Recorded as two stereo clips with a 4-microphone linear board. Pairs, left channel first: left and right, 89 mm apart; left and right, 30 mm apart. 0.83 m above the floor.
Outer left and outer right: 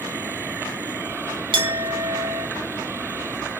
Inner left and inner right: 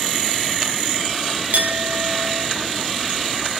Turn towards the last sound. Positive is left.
turn(degrees=-60)  # may be behind; listen again after turning